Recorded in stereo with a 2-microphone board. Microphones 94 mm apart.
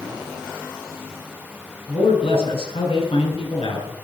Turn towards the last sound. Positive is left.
turn(degrees=75)  # may be behind; listen again after turning